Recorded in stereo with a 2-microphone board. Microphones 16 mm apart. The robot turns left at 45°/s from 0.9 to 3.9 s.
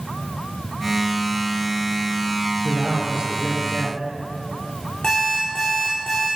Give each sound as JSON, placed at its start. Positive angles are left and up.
{"t": 2.6, "sound": "a man speaking", "azimuth_deg": -30, "distance_m": 3.5}
{"t": 5.0, "sound": "an alarm clock", "side_deg": 45, "distance_m": 6.5}